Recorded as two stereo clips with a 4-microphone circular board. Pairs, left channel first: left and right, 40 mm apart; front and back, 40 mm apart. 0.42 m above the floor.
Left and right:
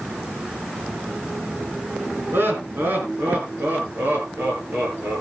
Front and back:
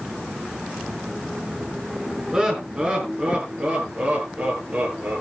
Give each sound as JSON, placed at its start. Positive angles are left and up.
{"t": 2.3, "sound": "laughter", "azimuth_deg": -110, "distance_m": 5.0}